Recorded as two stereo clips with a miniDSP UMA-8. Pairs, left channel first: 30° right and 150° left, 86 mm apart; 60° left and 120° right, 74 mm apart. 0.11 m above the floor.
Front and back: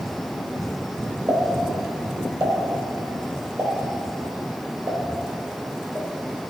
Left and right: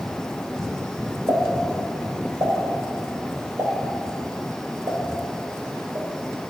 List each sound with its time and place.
1.3 s a pop: 145° right, 3 m